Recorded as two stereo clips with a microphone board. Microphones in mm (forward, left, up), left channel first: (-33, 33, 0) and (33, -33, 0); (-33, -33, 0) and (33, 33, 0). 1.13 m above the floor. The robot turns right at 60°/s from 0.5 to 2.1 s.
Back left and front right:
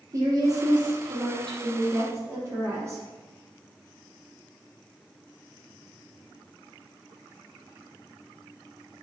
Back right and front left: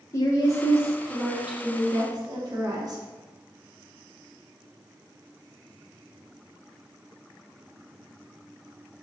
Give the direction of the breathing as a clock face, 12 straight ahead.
I don't hear breathing.